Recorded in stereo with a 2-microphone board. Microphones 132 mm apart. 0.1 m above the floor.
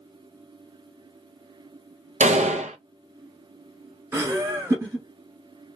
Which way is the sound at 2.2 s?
65° right (ahead or behind).